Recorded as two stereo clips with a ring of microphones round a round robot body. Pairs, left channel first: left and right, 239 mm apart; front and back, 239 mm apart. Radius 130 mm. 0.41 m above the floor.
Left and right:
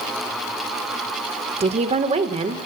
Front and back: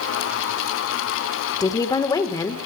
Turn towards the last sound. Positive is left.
turn(degrees=-60)